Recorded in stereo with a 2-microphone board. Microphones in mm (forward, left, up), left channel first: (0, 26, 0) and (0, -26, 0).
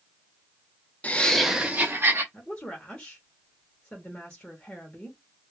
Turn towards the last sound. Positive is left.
turn(degrees=20)  # may be behind; listen again after turning